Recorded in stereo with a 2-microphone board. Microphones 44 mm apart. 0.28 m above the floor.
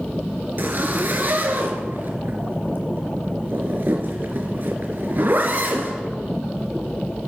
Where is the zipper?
50° right (ahead or behind), 2.5 m.